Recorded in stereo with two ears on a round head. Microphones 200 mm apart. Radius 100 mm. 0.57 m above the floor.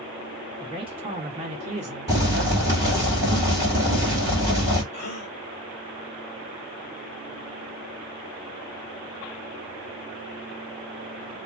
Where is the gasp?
50° left (ahead or behind), 1.1 m.